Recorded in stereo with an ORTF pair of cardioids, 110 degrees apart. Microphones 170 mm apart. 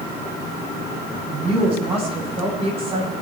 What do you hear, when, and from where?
1.3 s a woman speaking: 35° right, 9 m